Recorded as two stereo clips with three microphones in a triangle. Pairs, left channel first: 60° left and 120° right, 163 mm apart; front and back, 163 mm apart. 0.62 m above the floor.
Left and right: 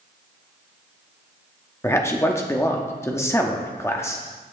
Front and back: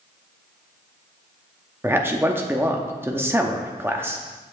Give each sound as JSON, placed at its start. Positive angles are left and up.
{"t": 1.8, "sound": "a man speaking", "azimuth_deg": 115, "distance_m": 0.8}